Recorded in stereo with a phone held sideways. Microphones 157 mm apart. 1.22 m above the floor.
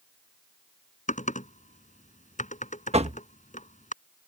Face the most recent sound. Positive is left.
turn(degrees=-45)  # may be behind; listen again after turning